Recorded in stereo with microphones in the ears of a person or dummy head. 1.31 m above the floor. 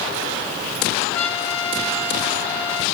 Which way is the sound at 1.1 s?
15° left (ahead or behind).